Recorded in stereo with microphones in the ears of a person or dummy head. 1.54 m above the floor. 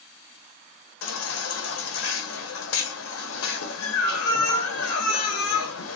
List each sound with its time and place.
1.0 s a baby crying: 75° left (ahead or behind), 1.1 m